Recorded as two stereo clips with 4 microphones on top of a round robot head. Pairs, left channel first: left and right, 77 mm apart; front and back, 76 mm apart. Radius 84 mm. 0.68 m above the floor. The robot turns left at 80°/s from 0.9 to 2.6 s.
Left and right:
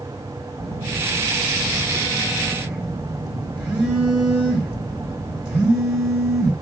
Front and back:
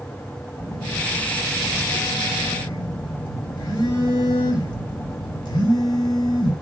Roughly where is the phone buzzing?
Behind left.